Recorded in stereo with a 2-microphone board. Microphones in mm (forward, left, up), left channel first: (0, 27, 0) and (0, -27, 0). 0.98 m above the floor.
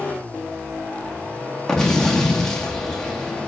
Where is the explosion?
10° left (ahead or behind), 1.6 m.